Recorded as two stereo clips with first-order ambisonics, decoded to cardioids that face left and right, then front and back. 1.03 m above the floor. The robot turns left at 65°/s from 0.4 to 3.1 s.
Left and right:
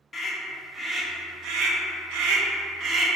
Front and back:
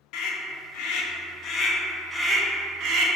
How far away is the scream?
About 0.5 m.